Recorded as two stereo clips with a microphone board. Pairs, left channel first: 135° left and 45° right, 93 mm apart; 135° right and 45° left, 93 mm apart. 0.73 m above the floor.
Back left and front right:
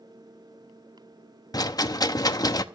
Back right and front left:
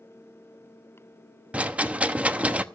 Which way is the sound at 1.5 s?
115° left.